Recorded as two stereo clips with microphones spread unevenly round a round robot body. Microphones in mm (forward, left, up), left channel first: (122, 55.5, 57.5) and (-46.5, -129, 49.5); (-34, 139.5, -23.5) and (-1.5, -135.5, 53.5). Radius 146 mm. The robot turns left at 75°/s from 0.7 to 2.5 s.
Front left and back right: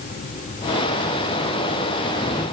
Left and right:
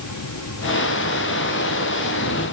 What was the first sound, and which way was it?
Only background noise.